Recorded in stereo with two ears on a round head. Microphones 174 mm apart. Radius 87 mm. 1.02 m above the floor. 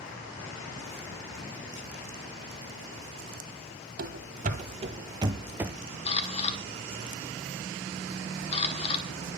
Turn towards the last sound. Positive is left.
turn(degrees=30)  # may be behind; listen again after turning